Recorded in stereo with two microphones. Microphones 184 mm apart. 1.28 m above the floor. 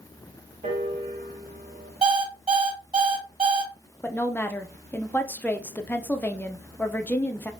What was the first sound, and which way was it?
A piano, 45° right (ahead or behind).